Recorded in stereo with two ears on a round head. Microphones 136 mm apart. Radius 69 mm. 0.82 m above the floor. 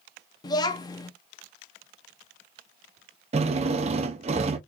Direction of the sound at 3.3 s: 45° right (ahead or behind).